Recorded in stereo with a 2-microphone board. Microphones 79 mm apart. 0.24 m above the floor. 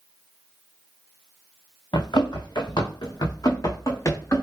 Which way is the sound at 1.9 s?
75° left (ahead or behind).